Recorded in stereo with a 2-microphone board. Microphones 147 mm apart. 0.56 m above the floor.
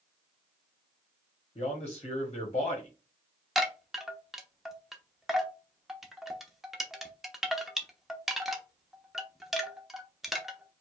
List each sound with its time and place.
1.6 s a man speaking: 40° left (ahead or behind), 1.4 m
3.5 s a chime: centre (ahead or behind), 0.8 m